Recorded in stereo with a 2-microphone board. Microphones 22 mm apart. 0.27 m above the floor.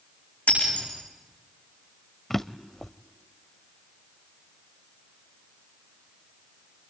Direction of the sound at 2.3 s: 10° left (ahead or behind).